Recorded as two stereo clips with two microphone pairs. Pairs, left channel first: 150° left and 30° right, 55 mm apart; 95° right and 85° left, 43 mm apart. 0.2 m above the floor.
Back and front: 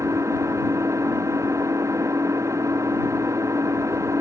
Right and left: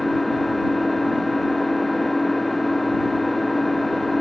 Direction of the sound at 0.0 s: 10° right.